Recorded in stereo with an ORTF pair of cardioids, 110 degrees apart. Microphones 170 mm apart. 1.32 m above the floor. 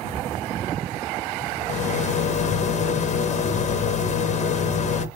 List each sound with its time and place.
1.7 s a rattle: 45° left, 1.0 m